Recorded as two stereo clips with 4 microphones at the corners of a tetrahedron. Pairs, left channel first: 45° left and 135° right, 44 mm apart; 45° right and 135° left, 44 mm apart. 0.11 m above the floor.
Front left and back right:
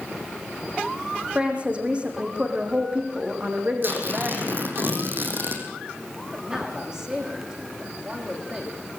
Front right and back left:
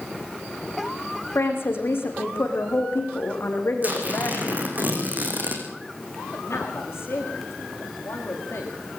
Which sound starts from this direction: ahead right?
A man speaking, at 6.3 s.